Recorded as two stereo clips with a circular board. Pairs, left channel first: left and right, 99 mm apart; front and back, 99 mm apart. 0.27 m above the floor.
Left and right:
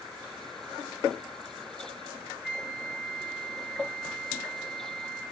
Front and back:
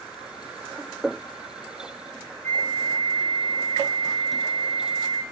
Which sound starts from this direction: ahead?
A flute, at 2.4 s.